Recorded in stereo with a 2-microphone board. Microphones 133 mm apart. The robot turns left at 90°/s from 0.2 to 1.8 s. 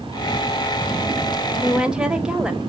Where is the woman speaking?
15° right (ahead or behind), 1.0 m; by 2.6 s 5° right (ahead or behind), 1.0 m.